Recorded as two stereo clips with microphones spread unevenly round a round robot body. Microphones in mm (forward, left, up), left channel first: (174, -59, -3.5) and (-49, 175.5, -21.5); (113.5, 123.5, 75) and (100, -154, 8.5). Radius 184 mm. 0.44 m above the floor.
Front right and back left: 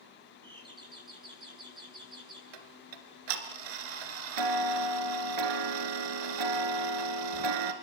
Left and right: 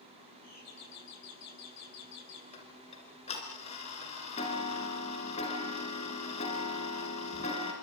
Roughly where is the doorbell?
Ahead left.